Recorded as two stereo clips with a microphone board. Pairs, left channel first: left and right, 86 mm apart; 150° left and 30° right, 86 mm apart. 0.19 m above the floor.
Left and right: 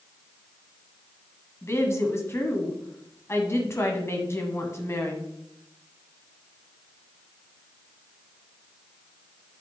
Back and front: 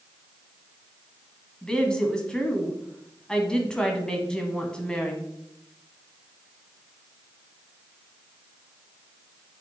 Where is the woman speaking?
75° left, 1.1 m.